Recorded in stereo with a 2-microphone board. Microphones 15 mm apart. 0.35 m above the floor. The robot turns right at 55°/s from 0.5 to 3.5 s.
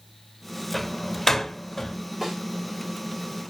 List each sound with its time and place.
0.7 s a door slam: 10° left (ahead or behind), 0.8 m; by 2.0 s 35° left (ahead or behind), 0.8 m
2.2 s a snare drum: 25° right (ahead or behind), 5 m; by 2.4 s 15° right (ahead or behind), 5 m